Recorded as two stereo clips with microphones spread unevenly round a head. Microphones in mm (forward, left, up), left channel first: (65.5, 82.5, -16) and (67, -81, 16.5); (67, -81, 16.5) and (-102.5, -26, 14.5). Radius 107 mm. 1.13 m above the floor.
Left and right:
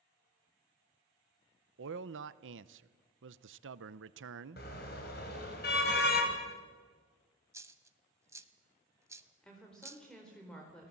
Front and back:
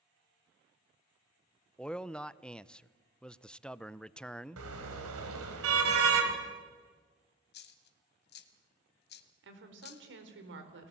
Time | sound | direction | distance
1.8 | a man speaking | 105° right | 0.7 m
4.6 | a car horn | 145° left | 3.5 m
7.5 | a dropped coin | 30° right | 1.5 m
9.4 | a woman speaking | 175° left | 4 m